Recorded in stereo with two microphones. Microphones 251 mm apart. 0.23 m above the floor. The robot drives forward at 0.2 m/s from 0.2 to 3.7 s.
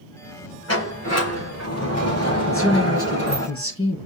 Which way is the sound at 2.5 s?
60° left (ahead or behind).